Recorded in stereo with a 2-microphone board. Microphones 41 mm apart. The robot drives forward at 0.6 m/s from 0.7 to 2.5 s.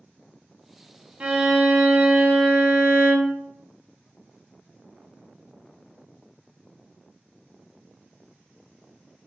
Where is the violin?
30° right (ahead or behind), 0.5 m; by 3.4 s 15° right (ahead or behind), 1.2 m.